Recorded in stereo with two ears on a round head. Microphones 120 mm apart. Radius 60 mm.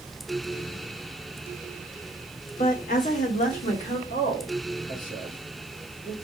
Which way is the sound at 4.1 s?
65° left (ahead or behind).